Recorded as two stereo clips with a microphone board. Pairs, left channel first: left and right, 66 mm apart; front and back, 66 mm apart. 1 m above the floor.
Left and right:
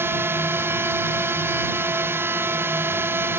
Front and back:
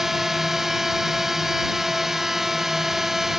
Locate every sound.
0.0 s a drone: 95° right